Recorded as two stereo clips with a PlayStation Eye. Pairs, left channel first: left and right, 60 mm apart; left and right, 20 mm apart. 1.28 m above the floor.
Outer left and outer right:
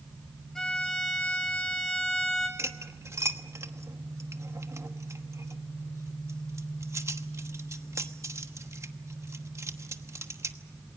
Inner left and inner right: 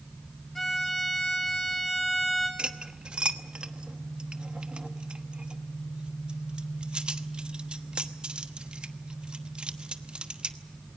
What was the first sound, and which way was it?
A violin, 10° left (ahead or behind).